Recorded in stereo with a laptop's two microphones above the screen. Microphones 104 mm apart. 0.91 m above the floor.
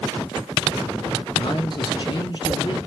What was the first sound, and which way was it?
A man speaking, 45° left (ahead or behind).